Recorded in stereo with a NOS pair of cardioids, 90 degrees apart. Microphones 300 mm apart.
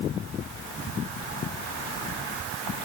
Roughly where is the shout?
I don't hear a shout.